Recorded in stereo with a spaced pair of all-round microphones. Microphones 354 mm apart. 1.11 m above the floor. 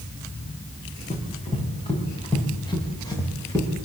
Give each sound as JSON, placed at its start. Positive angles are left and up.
{"t": 1.1, "sound": "running footsteps", "side_deg": 20, "distance_m": 7.5}